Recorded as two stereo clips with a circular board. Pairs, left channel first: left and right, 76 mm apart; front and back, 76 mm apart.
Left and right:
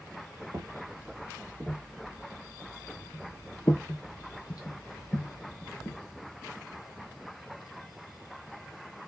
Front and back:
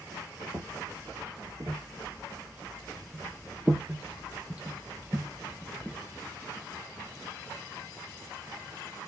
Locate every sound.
0.5 s footsteps: 135° right, 1.5 m; by 6.0 s 95° left, 2 m